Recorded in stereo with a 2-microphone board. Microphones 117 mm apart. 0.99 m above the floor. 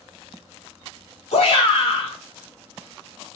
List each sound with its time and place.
1.3 s a shout: 65° left (ahead or behind), 1.6 m